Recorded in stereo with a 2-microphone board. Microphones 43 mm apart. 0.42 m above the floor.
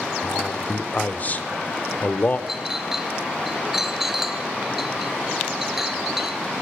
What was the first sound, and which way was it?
A man speaking, 35° left (ahead or behind).